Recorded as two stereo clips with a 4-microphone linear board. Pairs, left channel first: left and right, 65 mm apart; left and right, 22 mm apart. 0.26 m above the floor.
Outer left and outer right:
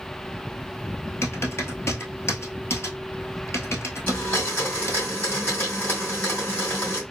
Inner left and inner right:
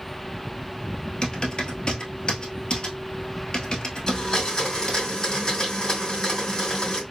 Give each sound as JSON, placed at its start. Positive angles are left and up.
{"t": 1.2, "sound": "typing on a keyboard", "side_deg": 40, "distance_m": 1.0}
{"t": 4.1, "sound": "a blender", "side_deg": 30, "distance_m": 2.5}